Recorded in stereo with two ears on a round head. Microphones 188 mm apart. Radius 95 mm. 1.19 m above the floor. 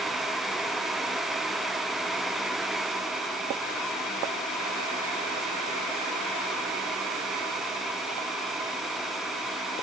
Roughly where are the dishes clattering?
No dishes clattering in this recording.